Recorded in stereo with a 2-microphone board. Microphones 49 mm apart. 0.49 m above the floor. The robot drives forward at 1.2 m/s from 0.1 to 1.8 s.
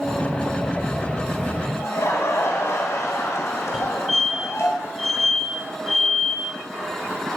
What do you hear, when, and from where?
1.8 s laughter: 65° left (ahead or behind), 2.5 m
3.7 s a fire alarm: 5° right (ahead or behind), 5 m